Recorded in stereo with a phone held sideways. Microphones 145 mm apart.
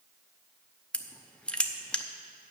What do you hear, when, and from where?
0.9 s crushing: 5° left (ahead or behind), 0.7 m